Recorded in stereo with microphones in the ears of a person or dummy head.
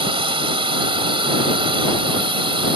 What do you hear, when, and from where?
0.0 s a drone: 25° right (ahead or behind)